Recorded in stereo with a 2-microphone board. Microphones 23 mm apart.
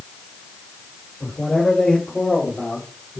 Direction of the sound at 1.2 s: 25° left (ahead or behind).